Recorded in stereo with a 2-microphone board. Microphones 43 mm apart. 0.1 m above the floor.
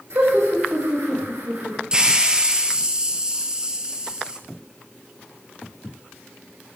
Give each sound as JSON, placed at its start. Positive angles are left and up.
{"t": 0.1, "sound": "laughter", "side_deg": -75, "distance_m": 6.5}
{"t": 1.9, "sound": "a hiss", "side_deg": -20, "distance_m": 1.3}